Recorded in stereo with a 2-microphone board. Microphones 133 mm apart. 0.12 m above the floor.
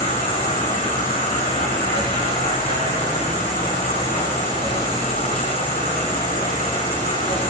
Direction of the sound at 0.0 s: 75° left (ahead or behind).